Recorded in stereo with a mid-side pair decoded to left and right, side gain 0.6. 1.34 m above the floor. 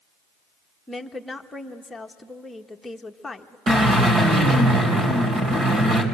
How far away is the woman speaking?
About 1.4 m.